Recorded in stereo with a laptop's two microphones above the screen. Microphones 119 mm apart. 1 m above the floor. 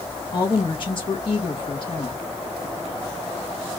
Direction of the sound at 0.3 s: 45° left (ahead or behind).